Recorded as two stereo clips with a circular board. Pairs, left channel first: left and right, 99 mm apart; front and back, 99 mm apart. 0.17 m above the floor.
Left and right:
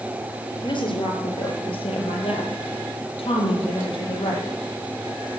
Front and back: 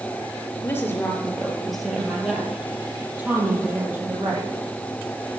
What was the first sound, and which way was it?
A woman speaking, 65° left.